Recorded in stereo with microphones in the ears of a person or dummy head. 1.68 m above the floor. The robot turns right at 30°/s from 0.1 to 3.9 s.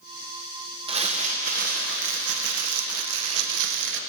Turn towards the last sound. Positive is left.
turn(degrees=-65)